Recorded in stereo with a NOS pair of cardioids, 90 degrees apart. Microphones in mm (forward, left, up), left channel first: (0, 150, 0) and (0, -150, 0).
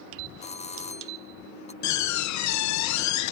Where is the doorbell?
20° left.